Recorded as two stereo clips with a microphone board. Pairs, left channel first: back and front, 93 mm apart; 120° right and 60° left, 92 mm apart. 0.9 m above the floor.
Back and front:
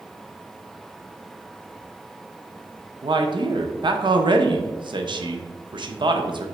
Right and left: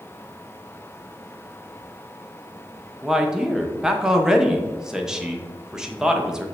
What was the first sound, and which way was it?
A man speaking, 20° right.